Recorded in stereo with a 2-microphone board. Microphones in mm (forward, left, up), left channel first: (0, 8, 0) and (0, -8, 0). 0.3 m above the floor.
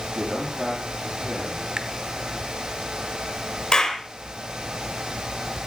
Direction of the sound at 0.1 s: 10° right (ahead or behind).